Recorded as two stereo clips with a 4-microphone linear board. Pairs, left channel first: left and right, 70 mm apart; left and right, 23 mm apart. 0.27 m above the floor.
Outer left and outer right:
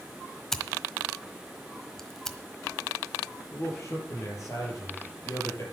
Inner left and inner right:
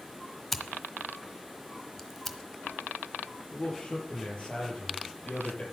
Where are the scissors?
5° left (ahead or behind), 1.2 m.